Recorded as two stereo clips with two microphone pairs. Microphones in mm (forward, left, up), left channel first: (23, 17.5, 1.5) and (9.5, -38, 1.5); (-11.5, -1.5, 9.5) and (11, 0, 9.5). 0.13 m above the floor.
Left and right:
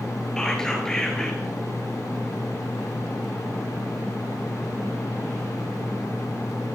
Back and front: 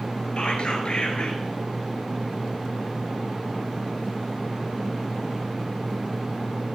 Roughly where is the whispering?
Behind left.